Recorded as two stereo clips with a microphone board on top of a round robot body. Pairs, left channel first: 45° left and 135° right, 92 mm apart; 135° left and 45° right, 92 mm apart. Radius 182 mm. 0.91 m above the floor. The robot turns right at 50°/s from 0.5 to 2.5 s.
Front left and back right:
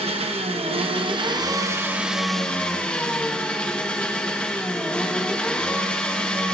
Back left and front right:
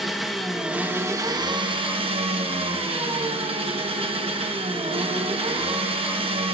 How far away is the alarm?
No alarm in this recording.